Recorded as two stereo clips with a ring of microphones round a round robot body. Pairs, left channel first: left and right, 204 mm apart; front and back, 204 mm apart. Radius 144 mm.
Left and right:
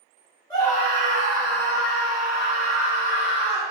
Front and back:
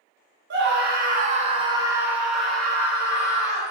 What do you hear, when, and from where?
0.5 s a scream: 165° left, 1.4 m; by 3.7 s 70° left, 2.5 m